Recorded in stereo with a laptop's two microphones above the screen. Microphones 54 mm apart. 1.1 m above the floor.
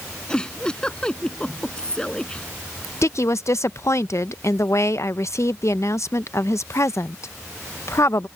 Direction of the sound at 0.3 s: 15° left (ahead or behind).